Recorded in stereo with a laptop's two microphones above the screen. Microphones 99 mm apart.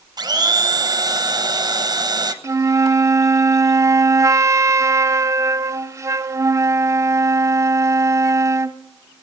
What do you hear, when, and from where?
0.2 s a blender: 45° right (ahead or behind), 1.1 m
2.4 s a flute: 30° right (ahead or behind), 0.6 m